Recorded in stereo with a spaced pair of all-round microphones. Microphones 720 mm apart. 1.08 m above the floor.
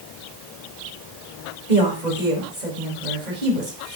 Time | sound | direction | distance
1.7 | a woman speaking | 80° right | 4.5 m